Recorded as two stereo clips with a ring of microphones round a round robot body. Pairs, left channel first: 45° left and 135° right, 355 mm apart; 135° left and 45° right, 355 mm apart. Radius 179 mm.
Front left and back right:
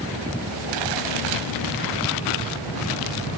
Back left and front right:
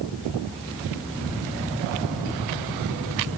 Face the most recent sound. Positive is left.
No sound to turn to.